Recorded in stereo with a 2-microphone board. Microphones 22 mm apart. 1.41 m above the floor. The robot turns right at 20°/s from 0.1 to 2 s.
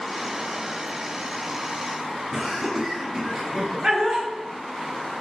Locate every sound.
2.3 s laughter: 25° right (ahead or behind), 0.5 m